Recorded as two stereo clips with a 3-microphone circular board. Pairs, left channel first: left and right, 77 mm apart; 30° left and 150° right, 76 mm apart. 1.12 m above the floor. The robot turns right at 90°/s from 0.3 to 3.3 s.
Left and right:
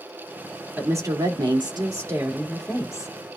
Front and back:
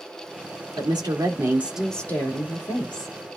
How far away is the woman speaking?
About 2.5 m.